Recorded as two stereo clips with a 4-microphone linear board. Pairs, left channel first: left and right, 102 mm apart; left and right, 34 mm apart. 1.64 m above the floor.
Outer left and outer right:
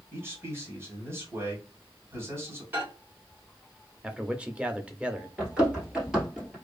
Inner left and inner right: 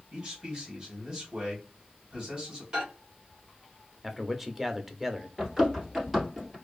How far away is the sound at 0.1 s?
About 1.6 m.